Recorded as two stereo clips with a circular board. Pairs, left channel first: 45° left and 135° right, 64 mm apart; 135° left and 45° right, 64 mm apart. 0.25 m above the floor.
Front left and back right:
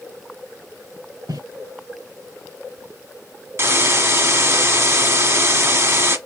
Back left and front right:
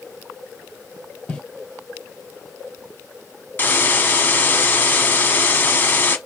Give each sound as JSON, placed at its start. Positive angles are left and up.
{"t": 1.3, "sound": "footsteps", "azimuth_deg": -155, "distance_m": 2.0}
{"t": 3.6, "sound": "a hiss", "azimuth_deg": -175, "distance_m": 1.0}